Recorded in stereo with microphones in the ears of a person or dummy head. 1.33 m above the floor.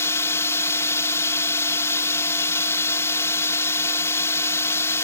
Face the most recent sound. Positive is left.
turn(degrees=15)  # may be behind; listen again after turning